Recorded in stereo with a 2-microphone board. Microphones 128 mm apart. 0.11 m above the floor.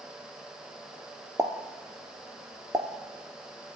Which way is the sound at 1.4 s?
25° right (ahead or behind).